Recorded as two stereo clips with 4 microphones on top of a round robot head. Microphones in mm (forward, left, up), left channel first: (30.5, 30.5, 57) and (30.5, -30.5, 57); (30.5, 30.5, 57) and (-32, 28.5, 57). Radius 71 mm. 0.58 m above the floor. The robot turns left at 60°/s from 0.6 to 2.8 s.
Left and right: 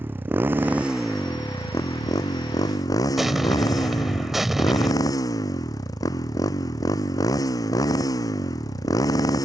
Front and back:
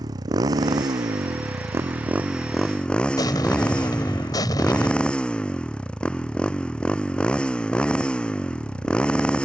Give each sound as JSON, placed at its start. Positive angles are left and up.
{"t": 0.0, "sound": "a motorcycle", "azimuth_deg": -150}
{"t": 3.2, "sound": "an explosion", "azimuth_deg": -5}